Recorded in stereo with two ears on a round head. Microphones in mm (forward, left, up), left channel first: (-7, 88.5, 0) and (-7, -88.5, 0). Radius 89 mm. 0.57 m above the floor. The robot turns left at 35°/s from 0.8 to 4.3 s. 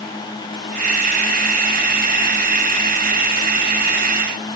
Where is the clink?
No clink in this recording.